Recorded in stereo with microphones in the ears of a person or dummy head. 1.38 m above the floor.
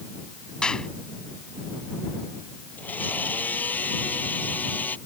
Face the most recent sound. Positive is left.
turn(degrees=10)  # may be behind; listen again after turning